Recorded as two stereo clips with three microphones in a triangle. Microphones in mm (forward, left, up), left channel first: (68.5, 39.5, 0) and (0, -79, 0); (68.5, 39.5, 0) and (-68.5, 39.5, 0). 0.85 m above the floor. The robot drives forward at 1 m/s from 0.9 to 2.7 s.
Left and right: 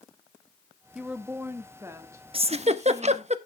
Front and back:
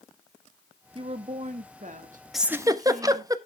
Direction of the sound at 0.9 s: 155° left.